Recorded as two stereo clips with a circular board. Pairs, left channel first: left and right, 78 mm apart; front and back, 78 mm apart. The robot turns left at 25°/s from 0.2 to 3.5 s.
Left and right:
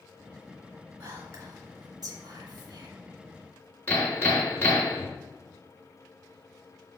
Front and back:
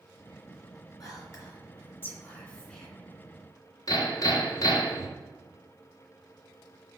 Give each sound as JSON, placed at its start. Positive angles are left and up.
{"t": 1.0, "sound": "whispering", "azimuth_deg": -35, "distance_m": 2.5}
{"t": 3.9, "sound": "hammering", "azimuth_deg": 25, "distance_m": 2.0}